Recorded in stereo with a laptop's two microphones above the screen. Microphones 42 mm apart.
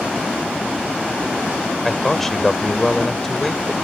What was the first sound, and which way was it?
A man speaking, 5° left (ahead or behind).